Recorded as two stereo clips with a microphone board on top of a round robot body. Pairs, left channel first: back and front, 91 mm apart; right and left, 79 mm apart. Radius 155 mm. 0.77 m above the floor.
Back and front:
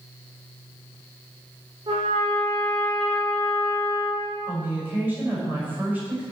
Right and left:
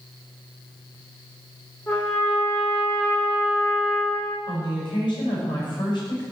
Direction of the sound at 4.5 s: 70° right.